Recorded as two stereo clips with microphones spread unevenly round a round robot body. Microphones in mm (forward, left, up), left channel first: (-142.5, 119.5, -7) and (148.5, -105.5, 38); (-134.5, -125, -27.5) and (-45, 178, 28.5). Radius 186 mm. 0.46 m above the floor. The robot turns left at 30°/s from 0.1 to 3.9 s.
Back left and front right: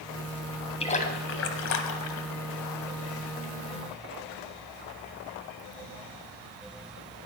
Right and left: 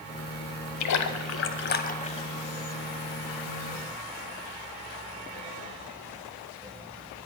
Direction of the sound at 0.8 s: 140° right.